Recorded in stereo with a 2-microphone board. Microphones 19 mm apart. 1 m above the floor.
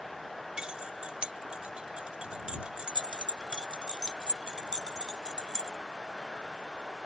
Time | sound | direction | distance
0.6 | keys jangling | 60° right (ahead or behind) | ?